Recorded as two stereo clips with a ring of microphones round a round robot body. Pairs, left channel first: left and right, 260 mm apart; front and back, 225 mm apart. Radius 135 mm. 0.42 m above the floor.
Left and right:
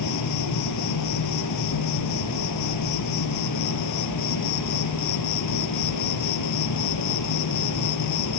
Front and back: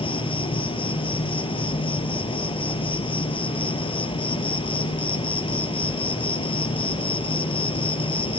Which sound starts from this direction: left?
An insect, at 0.0 s.